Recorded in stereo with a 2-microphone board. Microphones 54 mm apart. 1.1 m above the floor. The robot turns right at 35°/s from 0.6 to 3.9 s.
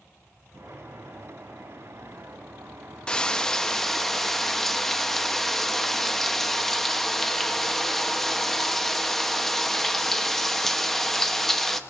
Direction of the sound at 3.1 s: 15° left (ahead or behind).